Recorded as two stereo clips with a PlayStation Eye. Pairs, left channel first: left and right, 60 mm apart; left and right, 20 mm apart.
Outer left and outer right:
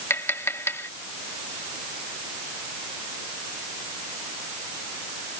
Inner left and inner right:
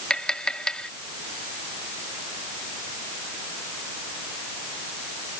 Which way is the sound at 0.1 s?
45° left (ahead or behind).